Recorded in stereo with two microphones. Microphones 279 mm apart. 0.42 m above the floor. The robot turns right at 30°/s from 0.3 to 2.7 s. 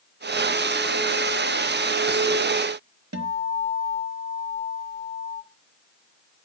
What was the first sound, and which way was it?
A guitar, 70° right (ahead or behind).